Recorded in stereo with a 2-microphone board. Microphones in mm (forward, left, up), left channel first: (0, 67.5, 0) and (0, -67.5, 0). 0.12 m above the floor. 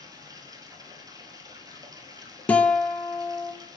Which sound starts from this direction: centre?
A guitar, at 2.5 s.